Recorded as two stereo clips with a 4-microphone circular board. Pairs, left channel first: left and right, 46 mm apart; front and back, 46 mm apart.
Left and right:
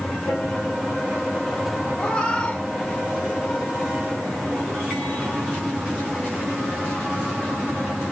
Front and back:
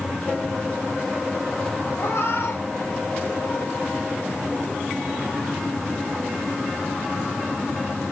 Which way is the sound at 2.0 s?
25° left.